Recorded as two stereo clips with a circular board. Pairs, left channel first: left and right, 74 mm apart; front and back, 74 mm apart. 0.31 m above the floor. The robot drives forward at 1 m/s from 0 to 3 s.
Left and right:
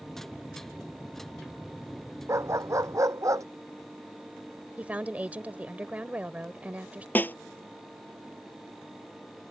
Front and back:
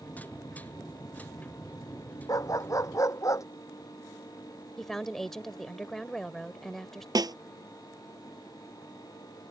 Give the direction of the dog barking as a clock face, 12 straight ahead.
1 o'clock.